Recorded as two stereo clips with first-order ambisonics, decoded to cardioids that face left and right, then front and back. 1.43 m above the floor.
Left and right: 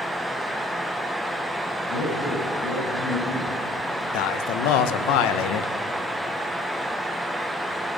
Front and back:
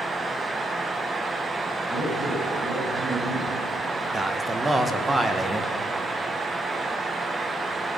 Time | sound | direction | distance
1.8 | a man speaking | 120° left | 9 m
4.1 | a man speaking | 100° left | 1.3 m